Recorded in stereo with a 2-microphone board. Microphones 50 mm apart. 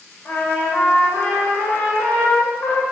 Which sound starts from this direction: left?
A trumpet, at 0.2 s.